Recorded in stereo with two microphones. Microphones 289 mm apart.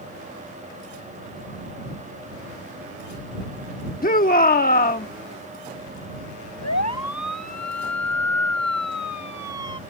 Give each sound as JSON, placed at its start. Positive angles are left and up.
{"t": 4.0, "sound": "a shout", "side_deg": 30}
{"t": 6.6, "sound": "a siren", "side_deg": 70}